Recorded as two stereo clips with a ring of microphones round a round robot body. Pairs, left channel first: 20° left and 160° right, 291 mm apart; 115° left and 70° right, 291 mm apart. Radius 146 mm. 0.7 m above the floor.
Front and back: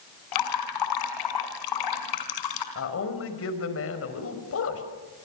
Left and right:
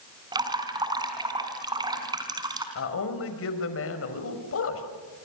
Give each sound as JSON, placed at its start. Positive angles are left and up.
{"t": 0.3, "sound": "dripping", "azimuth_deg": 10, "distance_m": 4.0}
{"t": 2.8, "sound": "a man speaking", "azimuth_deg": 70, "distance_m": 5.0}